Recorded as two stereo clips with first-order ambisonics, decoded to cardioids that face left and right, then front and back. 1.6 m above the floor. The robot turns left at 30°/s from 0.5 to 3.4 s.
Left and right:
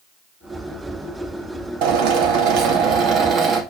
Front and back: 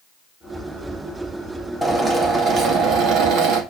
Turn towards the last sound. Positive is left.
turn(degrees=-145)